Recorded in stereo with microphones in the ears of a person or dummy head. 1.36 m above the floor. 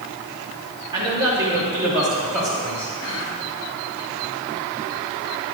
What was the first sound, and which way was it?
A man speaking, 20° right (ahead or behind).